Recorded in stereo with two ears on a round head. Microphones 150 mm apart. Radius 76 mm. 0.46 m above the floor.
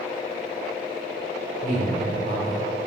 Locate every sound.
1.6 s a man speaking: 40° right (ahead or behind), 1.9 m